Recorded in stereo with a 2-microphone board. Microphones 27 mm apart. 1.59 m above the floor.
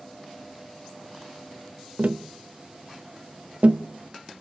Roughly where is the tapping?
Right.